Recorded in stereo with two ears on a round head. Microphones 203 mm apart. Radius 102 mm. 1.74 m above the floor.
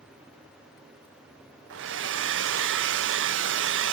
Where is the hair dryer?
55° right (ahead or behind), 0.8 m.